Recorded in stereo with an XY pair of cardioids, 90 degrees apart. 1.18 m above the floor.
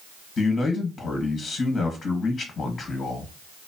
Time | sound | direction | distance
0.4 | a man speaking | 60° left | 1.4 m